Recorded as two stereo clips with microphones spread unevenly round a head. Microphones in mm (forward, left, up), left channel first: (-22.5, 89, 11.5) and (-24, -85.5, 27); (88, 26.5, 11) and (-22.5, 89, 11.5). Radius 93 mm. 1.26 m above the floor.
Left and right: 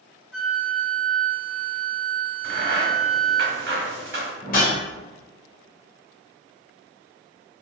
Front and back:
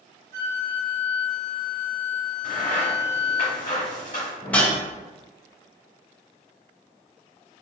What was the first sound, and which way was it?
A flute, straight behind.